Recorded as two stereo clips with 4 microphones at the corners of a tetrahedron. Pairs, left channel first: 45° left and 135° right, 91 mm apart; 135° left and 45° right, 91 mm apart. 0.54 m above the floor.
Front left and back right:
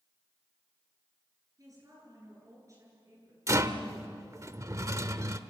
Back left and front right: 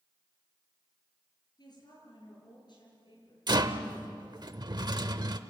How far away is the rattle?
About 0.9 m.